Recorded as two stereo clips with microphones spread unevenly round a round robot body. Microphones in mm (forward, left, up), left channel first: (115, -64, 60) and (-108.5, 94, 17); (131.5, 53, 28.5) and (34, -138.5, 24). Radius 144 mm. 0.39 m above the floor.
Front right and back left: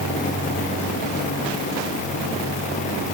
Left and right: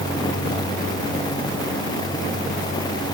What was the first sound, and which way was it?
Only background noise.